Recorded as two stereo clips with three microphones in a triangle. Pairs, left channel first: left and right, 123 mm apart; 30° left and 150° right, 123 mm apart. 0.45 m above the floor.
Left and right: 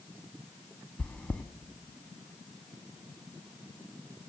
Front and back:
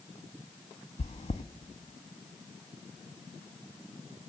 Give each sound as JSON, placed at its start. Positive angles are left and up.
{"t": 1.0, "sound": "chewing", "azimuth_deg": 10, "distance_m": 0.5}